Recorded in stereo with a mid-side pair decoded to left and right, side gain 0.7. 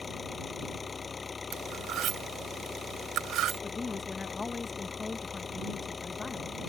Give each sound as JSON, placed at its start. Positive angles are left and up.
{"t": 0.0, "sound": "an engine running", "azimuth_deg": 25}
{"t": 1.5, "sound": "cutlery clinking", "azimuth_deg": -50}
{"t": 3.6, "sound": "a woman speaking", "azimuth_deg": 20}